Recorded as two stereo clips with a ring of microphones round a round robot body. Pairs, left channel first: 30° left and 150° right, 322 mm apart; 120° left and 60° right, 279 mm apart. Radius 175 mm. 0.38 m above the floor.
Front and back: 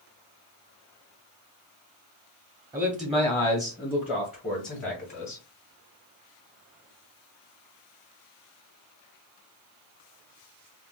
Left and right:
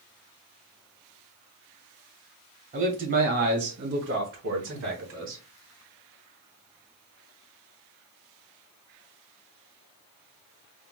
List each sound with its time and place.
2.7 s a man speaking: 80° right, 1.0 m; by 5.4 s 25° right, 1.8 m